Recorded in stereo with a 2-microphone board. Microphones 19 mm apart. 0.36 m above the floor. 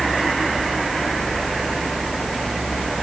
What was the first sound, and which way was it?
Only background noise.